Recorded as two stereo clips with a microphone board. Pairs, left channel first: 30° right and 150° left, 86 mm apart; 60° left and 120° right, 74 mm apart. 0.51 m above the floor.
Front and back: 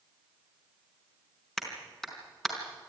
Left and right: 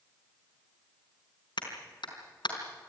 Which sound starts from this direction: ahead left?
A clap, at 1.6 s.